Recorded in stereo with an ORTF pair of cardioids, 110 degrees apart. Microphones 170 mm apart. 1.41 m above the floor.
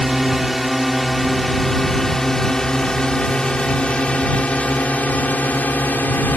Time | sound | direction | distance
0.0 | a drone | straight ahead | ?